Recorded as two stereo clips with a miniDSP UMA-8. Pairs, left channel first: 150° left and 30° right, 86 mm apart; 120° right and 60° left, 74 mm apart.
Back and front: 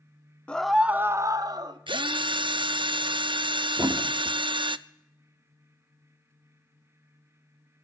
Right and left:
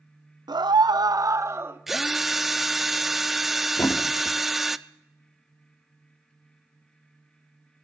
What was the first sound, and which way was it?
A scream, 75° left.